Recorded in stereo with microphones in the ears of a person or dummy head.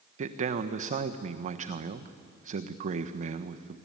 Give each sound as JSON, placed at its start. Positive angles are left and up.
{"t": 0.2, "sound": "a man speaking", "side_deg": -45, "distance_m": 1.3}